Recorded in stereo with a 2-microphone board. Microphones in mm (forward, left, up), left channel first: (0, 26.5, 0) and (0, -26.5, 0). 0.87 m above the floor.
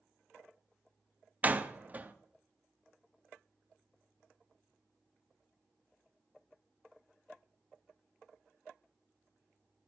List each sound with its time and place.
1.4 s a door slam: 30° right (ahead or behind), 0.7 m